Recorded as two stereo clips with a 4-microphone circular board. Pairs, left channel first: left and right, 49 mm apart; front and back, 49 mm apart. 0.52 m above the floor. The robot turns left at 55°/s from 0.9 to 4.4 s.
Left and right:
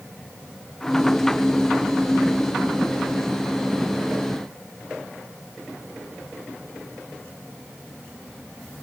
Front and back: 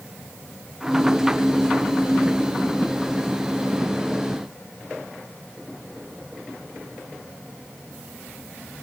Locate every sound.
Only background noise.